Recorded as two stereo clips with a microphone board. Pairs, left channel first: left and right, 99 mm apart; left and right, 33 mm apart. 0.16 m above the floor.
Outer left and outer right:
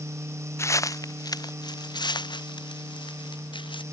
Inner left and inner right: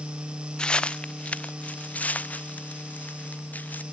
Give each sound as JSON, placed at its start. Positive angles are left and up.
{"t": 0.6, "sound": "footsteps", "side_deg": 30}